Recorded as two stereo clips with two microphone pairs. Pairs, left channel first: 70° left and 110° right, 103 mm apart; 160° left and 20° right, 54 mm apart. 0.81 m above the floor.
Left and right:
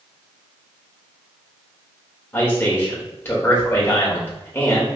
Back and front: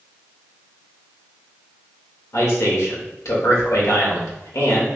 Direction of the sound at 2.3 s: 140° left.